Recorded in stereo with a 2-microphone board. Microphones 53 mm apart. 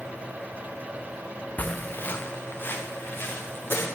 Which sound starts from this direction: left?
Footsteps, at 1.6 s.